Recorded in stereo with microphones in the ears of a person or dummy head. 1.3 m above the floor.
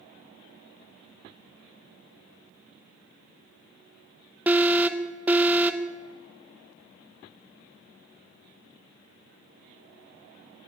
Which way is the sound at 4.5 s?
15° right (ahead or behind).